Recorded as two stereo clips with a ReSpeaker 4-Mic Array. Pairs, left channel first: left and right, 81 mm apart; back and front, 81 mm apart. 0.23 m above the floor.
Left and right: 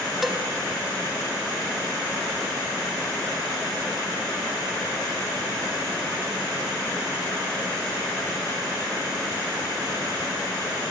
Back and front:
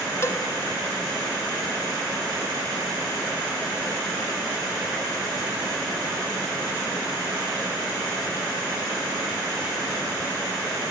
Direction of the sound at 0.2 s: 175° right.